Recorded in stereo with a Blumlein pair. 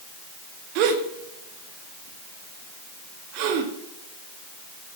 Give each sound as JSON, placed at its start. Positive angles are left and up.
{"t": 0.8, "sound": "a gasp", "azimuth_deg": -40, "distance_m": 1.7}